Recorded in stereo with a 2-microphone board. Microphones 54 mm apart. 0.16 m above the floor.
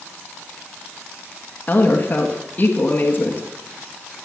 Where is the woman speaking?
30° left (ahead or behind), 1.5 m.